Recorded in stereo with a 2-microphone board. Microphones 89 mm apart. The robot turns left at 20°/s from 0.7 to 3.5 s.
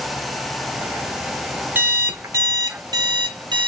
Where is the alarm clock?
20° right, 0.8 m; by 3.7 s 55° right, 0.8 m.